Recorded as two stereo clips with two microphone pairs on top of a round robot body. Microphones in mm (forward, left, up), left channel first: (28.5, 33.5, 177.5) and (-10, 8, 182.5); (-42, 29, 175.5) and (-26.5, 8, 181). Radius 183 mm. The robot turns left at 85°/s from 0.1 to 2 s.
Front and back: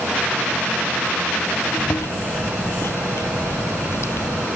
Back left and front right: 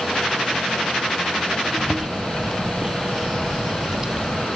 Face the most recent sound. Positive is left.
turn(degrees=10)